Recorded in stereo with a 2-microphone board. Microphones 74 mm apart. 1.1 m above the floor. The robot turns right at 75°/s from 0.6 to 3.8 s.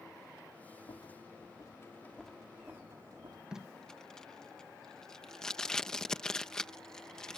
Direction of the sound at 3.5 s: 10° right (ahead or behind).